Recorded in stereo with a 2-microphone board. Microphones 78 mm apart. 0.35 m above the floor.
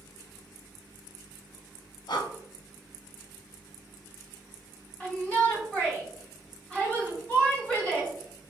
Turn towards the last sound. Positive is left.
turn(degrees=15)  # may be behind; listen again after turning